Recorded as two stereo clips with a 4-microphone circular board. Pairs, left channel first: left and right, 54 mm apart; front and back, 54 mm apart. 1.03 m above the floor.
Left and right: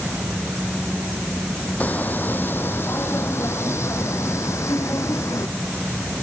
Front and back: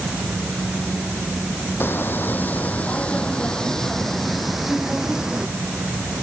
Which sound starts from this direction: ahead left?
Footsteps, at 1.8 s.